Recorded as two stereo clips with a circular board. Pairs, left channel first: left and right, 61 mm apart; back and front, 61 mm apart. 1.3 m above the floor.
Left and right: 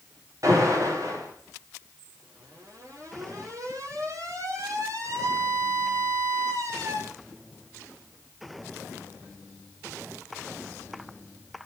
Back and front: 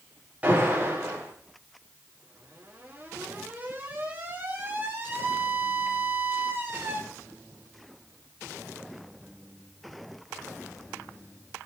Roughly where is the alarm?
Ahead right.